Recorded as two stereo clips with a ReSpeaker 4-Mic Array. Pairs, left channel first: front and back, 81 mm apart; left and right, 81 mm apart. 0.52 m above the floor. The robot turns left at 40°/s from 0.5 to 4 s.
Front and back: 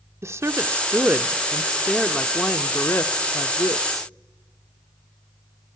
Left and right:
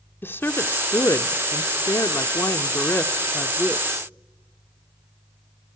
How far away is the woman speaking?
About 0.9 m.